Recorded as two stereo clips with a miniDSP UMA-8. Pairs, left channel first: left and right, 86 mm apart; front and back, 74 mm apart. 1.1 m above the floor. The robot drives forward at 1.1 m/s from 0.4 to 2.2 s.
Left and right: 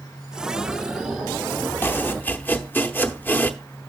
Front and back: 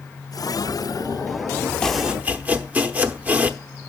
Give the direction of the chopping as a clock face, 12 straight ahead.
10 o'clock.